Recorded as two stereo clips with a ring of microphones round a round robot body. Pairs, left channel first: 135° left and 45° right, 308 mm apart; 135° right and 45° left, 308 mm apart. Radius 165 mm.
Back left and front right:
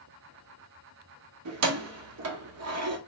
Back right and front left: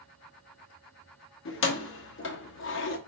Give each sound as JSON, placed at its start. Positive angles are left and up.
{"t": 1.4, "sound": "keys jangling", "azimuth_deg": -85, "distance_m": 0.9}